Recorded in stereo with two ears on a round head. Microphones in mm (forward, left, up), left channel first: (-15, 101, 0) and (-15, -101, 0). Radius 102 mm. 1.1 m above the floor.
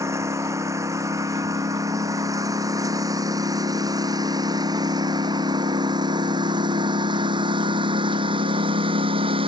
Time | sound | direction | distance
0.0 | a lawn mower | 15° right (ahead or behind) | ?